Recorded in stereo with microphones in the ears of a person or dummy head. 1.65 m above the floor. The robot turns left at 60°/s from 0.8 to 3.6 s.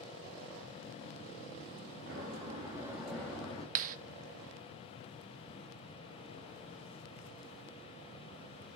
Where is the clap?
45° right (ahead or behind), 0.6 m.